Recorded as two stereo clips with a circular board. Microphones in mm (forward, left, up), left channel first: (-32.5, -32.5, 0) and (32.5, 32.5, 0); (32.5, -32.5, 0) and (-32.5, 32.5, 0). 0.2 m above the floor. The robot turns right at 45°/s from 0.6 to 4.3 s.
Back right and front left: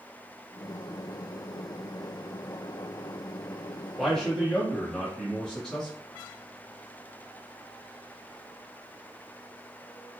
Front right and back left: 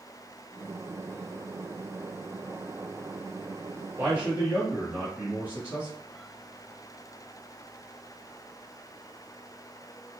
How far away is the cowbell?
I don't hear a cowbell.